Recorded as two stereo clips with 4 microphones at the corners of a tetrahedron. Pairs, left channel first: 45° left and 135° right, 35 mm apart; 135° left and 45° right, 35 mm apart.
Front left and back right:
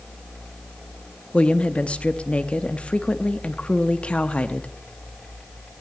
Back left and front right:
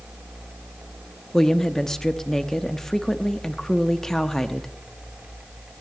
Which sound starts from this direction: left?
A woman speaking, at 1.3 s.